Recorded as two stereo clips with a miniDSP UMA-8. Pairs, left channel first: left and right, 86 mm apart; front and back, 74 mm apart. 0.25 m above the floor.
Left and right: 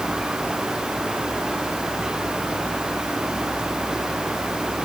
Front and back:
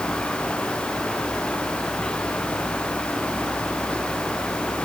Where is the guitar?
No guitar in this recording.